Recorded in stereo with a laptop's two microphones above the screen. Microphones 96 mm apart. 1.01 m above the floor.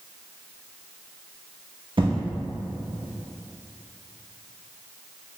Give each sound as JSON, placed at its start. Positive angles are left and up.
{"t": 2.0, "sound": "an explosion", "side_deg": -65, "distance_m": 1.0}